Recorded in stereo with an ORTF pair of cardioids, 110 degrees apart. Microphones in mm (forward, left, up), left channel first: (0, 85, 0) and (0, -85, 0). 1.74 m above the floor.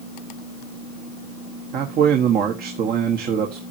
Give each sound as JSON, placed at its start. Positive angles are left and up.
{"t": 1.7, "sound": "a man speaking", "azimuth_deg": -65, "distance_m": 1.4}